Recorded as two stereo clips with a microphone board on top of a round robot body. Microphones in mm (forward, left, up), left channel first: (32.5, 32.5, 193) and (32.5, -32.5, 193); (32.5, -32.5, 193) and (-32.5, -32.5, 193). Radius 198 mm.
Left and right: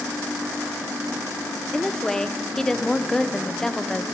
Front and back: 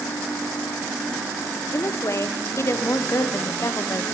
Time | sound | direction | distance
1.7 | a woman speaking | 10° left | 0.7 m